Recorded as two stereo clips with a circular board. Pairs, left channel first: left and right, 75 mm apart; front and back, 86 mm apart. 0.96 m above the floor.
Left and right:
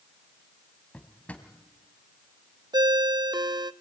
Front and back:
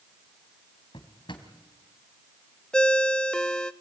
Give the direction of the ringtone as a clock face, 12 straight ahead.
3 o'clock.